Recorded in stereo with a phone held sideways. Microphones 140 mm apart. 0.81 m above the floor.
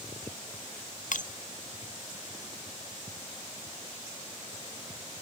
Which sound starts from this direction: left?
Breaking glass, at 1.1 s.